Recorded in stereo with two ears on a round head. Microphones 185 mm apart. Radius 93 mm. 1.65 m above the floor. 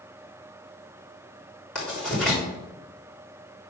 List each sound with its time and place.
1.8 s writing: 5° left (ahead or behind), 3.5 m